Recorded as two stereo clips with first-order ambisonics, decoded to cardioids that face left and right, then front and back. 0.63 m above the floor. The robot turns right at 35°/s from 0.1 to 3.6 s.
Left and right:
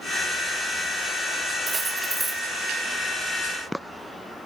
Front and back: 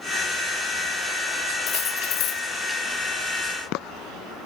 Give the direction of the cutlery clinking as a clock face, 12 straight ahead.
1 o'clock.